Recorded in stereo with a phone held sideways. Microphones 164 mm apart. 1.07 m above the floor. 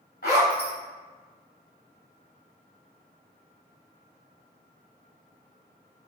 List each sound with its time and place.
0.2 s a zipper: 65° left (ahead or behind), 1.8 m